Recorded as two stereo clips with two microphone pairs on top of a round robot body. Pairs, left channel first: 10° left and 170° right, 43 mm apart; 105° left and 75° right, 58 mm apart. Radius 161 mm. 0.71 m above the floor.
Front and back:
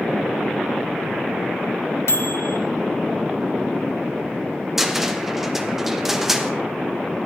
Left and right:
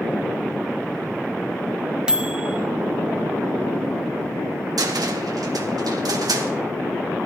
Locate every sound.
2.1 s a microwave: 5° left, 1.2 m
4.8 s a cupboard door: 90° right, 1.4 m